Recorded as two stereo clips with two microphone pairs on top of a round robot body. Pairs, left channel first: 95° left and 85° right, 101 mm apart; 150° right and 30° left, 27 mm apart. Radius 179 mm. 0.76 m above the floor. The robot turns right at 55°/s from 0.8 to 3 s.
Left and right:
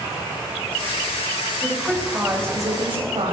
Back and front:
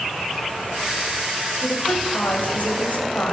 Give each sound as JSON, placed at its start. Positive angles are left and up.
{"t": 1.6, "sound": "a woman speaking", "azimuth_deg": 165, "distance_m": 4.5}